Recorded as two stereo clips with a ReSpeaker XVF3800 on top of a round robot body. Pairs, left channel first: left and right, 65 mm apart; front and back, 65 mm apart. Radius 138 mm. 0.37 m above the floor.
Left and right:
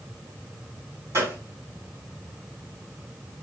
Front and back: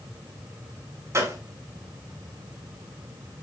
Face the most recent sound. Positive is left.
turn(degrees=-140)